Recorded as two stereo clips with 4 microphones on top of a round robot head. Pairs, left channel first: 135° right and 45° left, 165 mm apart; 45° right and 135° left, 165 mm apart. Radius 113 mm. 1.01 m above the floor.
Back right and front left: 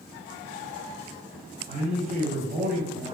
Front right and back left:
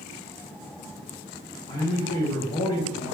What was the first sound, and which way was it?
A man speaking, 10° left.